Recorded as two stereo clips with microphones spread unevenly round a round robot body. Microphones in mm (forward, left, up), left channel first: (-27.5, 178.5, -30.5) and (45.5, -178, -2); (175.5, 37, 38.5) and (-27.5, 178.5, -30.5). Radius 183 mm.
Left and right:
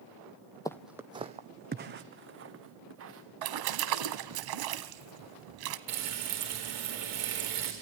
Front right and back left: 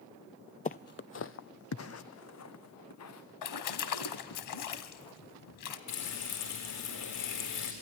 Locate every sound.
0.7 s footsteps: 20° left, 0.6 m; by 4.4 s 25° right, 3 m
3.4 s a splash: 45° right, 1.2 m
5.9 s frying: 45° right, 4.5 m